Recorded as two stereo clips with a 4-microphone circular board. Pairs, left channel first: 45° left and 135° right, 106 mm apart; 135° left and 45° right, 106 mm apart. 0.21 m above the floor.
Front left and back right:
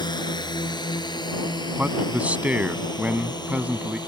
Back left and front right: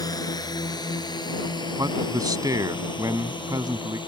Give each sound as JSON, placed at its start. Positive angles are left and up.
{"t": 0.0, "sound": "a drone", "azimuth_deg": 85}
{"t": 1.8, "sound": "a man speaking", "azimuth_deg": -65}